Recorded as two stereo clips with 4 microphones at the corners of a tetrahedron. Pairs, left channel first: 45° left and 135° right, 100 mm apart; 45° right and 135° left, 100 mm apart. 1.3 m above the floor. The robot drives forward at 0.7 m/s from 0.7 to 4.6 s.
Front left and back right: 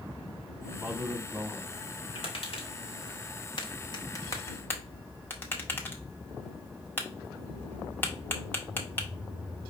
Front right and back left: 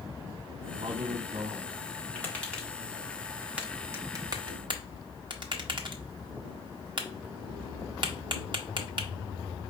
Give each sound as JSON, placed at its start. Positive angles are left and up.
{"t": 0.8, "sound": "a man speaking", "azimuth_deg": 150, "distance_m": 0.8}
{"t": 2.1, "sound": "tapping", "azimuth_deg": 30, "distance_m": 1.7}